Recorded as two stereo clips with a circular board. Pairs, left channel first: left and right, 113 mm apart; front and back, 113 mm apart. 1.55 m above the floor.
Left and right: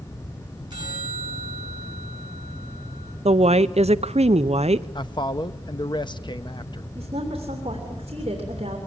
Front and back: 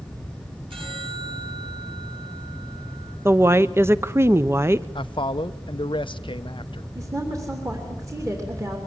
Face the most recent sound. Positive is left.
turn(degrees=-120)